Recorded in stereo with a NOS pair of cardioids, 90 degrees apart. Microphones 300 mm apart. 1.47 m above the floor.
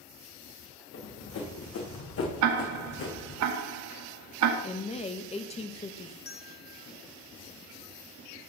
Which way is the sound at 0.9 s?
60° left.